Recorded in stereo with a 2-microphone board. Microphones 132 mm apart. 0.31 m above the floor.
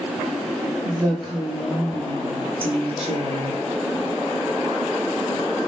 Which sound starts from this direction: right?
A woman speaking, at 0.8 s.